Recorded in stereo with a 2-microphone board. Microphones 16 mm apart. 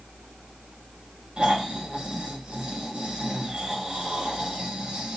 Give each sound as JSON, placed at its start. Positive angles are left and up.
{"t": 1.4, "sound": "snoring", "side_deg": -75, "distance_m": 3.5}